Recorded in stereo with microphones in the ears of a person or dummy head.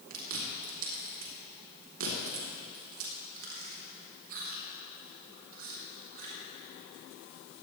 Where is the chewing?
75° right (ahead or behind), 3.5 m.